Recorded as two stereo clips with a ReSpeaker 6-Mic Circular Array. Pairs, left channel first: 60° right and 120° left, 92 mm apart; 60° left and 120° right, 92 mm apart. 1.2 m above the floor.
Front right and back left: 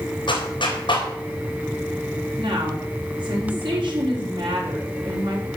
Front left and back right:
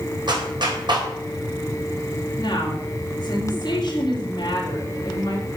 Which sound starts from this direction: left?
A woman speaking, at 2.4 s.